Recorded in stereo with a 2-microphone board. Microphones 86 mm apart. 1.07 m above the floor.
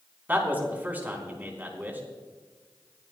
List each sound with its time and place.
0.3 s a man speaking: 20° right (ahead or behind), 3.5 m